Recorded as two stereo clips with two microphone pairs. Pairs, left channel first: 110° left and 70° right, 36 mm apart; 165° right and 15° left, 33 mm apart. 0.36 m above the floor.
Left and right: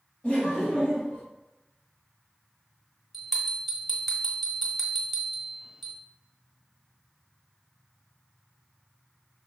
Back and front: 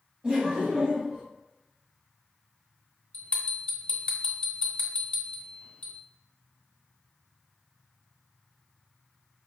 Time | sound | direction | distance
0.2 | laughter | 45° left | 1.4 m
3.1 | a bell | 160° right | 1.0 m